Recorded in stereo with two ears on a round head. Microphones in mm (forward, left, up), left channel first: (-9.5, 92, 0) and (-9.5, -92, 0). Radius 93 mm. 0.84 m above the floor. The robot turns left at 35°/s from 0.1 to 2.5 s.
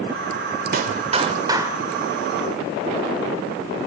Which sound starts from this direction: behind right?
A clap, at 0.7 s.